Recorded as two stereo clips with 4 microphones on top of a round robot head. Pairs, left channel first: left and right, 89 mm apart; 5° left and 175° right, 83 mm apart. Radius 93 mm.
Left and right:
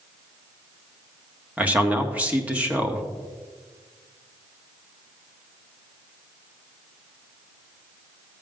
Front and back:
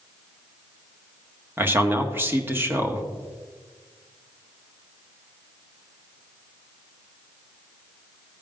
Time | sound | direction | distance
1.6 | a man speaking | 145° right | 1.4 m